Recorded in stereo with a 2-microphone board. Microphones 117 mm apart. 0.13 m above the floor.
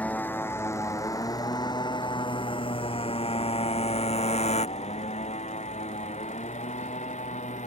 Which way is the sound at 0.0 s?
15° left (ahead or behind).